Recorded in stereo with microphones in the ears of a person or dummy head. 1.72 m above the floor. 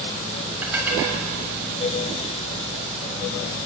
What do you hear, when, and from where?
0.6 s dishes clattering: 10° right (ahead or behind), 7 m